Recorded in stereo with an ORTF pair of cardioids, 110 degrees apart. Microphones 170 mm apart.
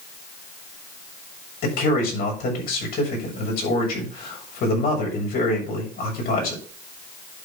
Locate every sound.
1.6 s a man speaking: 60° left, 7 m